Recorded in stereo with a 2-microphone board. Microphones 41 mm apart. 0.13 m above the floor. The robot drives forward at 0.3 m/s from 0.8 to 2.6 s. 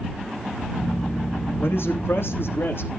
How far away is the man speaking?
About 6 m.